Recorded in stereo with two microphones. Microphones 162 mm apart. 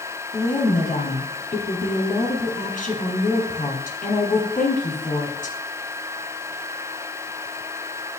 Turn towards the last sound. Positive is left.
turn(degrees=55)  # may be behind; listen again after turning